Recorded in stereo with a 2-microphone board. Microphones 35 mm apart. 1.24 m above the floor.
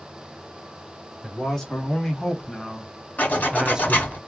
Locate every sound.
1.2 s a man speaking: 15° left (ahead or behind), 1.7 m; by 4.2 s 35° right (ahead or behind), 0.5 m
3.2 s a zipper: 55° left (ahead or behind), 1.8 m